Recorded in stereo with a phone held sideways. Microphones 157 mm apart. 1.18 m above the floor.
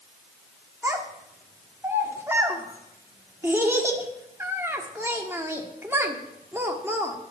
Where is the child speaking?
15° right (ahead or behind), 1.4 m.